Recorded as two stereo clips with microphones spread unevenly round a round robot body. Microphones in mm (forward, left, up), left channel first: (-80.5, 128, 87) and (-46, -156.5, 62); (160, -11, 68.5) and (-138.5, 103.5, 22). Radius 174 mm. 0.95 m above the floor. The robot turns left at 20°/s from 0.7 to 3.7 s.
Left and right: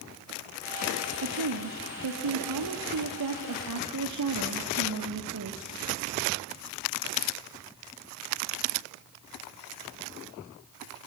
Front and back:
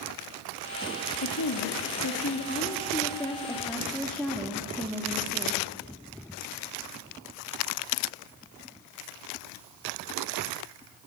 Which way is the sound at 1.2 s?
60° right.